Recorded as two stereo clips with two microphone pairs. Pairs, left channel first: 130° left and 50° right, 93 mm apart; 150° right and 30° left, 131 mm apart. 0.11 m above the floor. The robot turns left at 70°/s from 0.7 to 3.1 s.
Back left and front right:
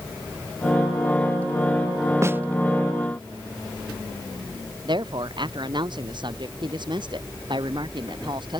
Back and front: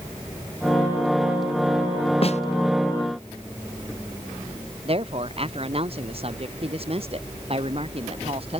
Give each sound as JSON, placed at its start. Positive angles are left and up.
{"t": 2.2, "sound": "a snare drum", "azimuth_deg": -110}
{"t": 4.8, "sound": "a woman speaking", "azimuth_deg": -15}